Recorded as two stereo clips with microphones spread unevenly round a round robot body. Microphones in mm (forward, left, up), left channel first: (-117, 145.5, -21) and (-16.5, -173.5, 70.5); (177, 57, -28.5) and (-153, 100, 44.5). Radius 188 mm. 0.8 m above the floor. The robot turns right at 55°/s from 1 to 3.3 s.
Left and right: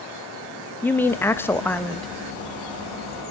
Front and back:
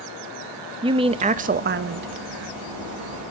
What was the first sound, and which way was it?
A woman speaking, 90° left.